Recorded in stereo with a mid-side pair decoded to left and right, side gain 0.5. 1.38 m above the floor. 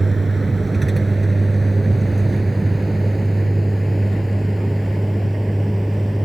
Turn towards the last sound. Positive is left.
turn(degrees=5)